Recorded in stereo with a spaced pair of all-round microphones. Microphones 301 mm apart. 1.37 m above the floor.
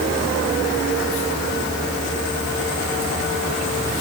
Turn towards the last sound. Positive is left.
No sound to turn to.